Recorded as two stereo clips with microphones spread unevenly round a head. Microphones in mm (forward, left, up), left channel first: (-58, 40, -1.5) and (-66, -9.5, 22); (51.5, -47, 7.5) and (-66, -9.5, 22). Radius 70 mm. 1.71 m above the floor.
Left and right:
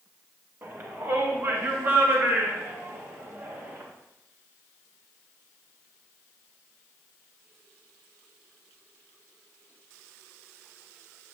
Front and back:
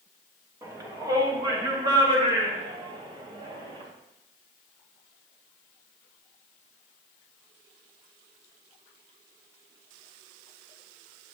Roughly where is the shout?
Behind right.